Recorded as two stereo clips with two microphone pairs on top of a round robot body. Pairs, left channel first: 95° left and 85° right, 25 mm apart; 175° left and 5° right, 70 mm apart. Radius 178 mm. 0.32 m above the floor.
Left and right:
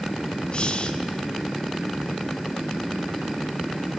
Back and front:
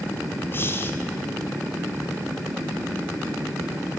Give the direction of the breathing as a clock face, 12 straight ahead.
8 o'clock.